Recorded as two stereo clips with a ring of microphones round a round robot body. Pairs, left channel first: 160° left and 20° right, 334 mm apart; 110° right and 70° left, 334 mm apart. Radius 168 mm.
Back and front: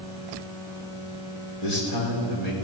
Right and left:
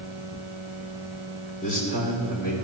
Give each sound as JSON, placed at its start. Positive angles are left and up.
{"t": 1.6, "sound": "a man speaking", "azimuth_deg": 180, "distance_m": 3.0}